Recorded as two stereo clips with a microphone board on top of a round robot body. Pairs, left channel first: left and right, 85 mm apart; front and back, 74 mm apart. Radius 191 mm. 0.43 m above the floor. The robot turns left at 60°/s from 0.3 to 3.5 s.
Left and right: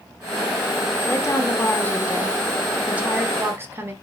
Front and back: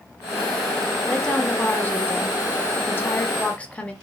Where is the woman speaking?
90° left, 0.9 m; by 3.9 s 60° right, 0.9 m.